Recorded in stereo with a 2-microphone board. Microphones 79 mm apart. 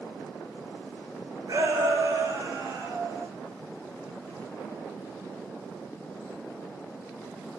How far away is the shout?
About 4 m.